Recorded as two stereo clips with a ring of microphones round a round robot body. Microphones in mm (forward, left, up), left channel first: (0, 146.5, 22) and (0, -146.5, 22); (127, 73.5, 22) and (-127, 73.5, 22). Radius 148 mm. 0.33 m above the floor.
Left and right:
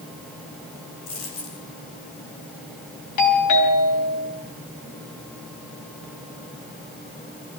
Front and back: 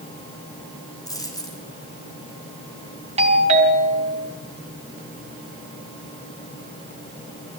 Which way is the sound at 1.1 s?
75° left.